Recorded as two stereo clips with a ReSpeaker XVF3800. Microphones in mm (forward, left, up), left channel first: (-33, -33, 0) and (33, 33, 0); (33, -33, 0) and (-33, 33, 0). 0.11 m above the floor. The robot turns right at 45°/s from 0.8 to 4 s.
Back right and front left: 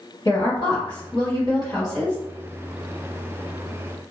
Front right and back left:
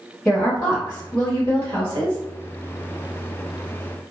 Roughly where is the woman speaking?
Behind right.